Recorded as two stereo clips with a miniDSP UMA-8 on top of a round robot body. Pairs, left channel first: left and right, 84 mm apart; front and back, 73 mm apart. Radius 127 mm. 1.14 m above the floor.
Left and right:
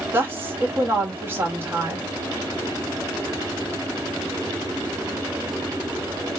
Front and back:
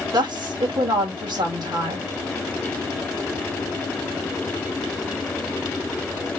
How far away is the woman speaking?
About 1.8 m.